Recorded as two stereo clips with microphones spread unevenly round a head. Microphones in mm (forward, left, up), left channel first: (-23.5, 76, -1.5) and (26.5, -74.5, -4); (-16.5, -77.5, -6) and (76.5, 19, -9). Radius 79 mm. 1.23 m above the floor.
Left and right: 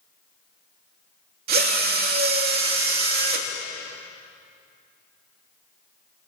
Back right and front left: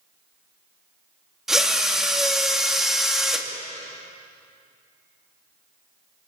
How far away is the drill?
About 3 m.